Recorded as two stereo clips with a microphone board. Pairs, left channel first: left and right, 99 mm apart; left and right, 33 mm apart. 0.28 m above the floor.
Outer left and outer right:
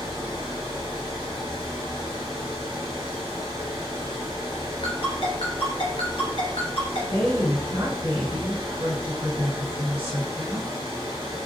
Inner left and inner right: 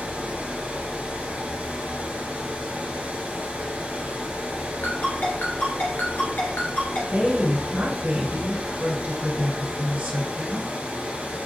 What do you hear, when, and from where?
0.0 s running water: 60° right (ahead or behind), 2 m
4.8 s a ringtone: 70° left (ahead or behind), 2.5 m
7.1 s a woman speaking: 70° right (ahead or behind), 2.5 m